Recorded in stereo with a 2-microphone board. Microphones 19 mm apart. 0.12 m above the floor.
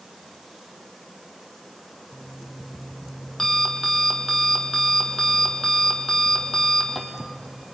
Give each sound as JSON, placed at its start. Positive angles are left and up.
{"t": 2.1, "sound": "an alarm clock", "side_deg": 15, "distance_m": 3.0}